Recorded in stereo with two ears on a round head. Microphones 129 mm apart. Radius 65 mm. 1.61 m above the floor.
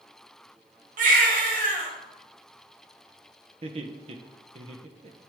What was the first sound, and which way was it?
A baby crying, 55° right (ahead or behind).